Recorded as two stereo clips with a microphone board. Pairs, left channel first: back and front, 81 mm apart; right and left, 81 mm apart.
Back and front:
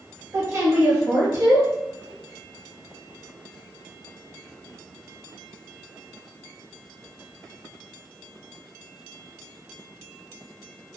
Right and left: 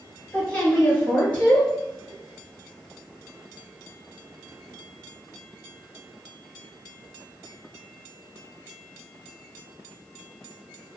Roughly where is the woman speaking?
Ahead right.